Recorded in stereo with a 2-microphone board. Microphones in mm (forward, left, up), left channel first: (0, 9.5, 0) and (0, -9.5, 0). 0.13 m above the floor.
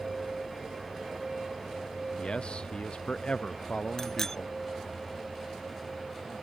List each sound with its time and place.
2.2 s a man speaking: 65° left (ahead or behind)
4.0 s a bicycle bell: 25° left (ahead or behind)